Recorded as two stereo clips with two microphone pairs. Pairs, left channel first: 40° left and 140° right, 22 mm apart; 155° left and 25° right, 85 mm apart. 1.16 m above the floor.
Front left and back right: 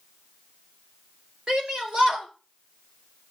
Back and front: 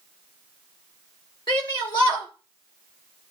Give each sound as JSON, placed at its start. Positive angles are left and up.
{"t": 1.5, "sound": "a shout", "azimuth_deg": -160, "distance_m": 2.5}